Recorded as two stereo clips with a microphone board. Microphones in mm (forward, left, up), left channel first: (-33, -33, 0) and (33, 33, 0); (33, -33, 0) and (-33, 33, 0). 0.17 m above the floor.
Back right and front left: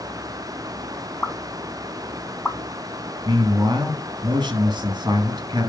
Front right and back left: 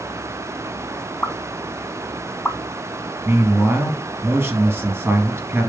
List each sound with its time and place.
1.2 s a pop: 90° right, 0.9 m
3.2 s a man speaking: 75° left, 2.5 m